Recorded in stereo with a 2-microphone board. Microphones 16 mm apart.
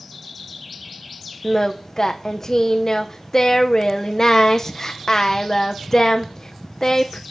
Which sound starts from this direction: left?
Singing, at 1.4 s.